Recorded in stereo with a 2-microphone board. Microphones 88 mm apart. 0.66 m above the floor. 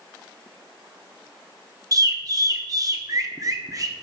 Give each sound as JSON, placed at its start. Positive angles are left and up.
{"t": 1.9, "sound": "a bird", "side_deg": -40, "distance_m": 0.8}